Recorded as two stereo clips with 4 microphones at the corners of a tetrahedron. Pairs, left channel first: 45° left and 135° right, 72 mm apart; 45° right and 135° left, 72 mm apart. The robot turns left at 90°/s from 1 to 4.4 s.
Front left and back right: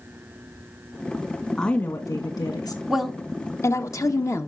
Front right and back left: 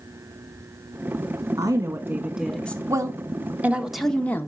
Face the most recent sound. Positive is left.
turn(degrees=10)